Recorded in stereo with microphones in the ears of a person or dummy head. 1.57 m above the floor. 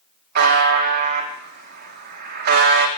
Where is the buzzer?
60° right (ahead or behind), 1.7 m.